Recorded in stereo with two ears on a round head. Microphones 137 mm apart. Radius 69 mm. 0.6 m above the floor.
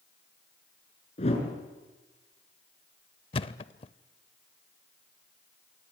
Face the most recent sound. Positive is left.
turn(degrees=35)  # may be behind; listen again after turning